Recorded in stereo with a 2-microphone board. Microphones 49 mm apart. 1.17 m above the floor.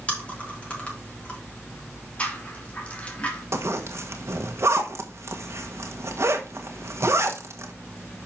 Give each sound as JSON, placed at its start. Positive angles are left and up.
{"t": 0.1, "sound": "chewing", "side_deg": 25, "distance_m": 4.0}
{"t": 2.2, "sound": "a rattle", "side_deg": 25, "distance_m": 2.5}
{"t": 3.5, "sound": "a zipper", "side_deg": -60, "distance_m": 1.4}